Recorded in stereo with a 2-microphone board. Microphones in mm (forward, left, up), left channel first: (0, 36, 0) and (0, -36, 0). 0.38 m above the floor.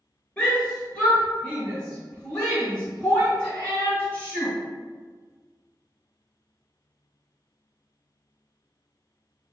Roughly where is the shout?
Centre.